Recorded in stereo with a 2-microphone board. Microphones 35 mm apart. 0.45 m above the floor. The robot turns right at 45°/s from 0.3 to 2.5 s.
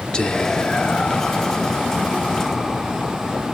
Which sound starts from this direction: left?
Whispering, at 0.1 s.